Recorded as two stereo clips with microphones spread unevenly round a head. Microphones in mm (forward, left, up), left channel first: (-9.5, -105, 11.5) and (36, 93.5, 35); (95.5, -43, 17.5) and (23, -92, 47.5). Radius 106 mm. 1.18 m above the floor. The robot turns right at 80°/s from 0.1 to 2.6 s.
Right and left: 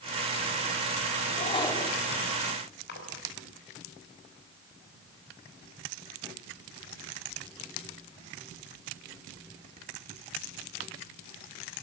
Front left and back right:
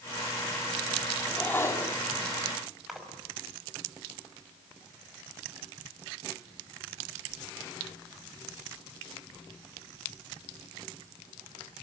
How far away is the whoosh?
About 2 m.